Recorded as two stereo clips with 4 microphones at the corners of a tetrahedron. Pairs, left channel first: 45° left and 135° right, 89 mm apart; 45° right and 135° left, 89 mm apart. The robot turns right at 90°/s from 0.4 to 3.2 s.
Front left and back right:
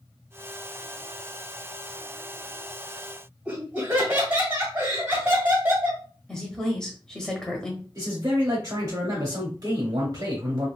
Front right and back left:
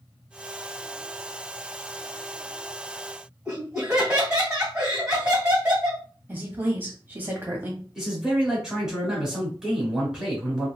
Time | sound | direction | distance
3.5 | laughter | 160° right | 1.6 m
6.3 | a woman speaking | 115° left | 1.0 m
8.0 | a man speaking | 145° right | 1.1 m